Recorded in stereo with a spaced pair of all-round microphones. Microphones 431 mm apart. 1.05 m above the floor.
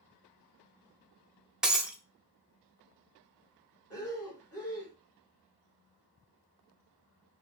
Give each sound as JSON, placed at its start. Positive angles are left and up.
{"t": 1.6, "sound": "breaking glass", "side_deg": 0, "distance_m": 0.7}
{"t": 3.9, "sound": "breathing", "side_deg": 30, "distance_m": 2.0}